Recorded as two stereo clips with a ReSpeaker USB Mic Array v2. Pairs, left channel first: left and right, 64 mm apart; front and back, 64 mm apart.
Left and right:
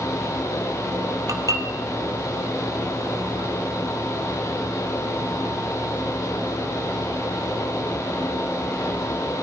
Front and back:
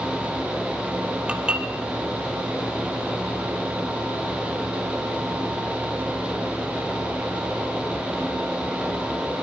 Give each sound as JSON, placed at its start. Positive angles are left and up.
{"t": 1.3, "sound": "dishes clattering", "azimuth_deg": -110, "distance_m": 2.5}